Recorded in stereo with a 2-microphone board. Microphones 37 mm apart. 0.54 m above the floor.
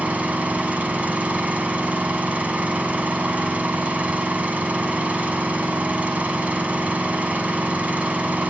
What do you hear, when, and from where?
0.0 s an engine running: 45° right (ahead or behind), 1.3 m